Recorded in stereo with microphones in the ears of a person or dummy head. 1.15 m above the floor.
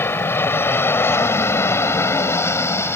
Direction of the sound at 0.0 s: 10° left (ahead or behind).